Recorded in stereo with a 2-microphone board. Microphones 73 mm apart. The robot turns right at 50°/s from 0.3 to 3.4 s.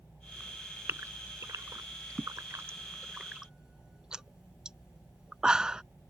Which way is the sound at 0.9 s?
35° right (ahead or behind).